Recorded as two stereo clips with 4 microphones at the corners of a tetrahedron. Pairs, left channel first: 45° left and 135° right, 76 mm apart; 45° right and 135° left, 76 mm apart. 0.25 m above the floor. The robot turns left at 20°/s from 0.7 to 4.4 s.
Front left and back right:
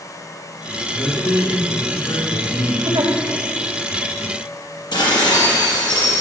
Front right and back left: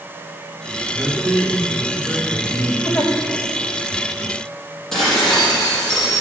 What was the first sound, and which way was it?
A man speaking, 90° left.